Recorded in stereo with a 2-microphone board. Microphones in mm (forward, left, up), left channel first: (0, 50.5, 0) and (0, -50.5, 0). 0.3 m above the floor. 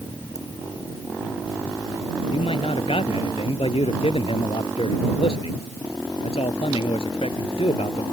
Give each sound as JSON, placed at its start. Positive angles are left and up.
{"t": 0.3, "sound": "a ringtone", "side_deg": 35}
{"t": 2.3, "sound": "a man speaking", "side_deg": 75}